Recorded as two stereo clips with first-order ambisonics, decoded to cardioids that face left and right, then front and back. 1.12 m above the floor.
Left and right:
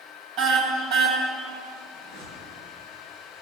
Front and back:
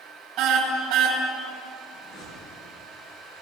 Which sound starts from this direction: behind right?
A car horn, at 0.4 s.